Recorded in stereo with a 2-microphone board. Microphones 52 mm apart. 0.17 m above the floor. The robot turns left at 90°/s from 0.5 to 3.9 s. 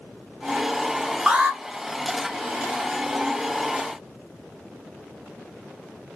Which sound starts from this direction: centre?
An alarm, at 1.3 s.